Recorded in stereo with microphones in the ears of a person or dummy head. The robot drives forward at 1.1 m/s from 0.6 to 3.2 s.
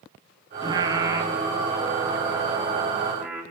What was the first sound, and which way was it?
Singing, 30° right (ahead or behind).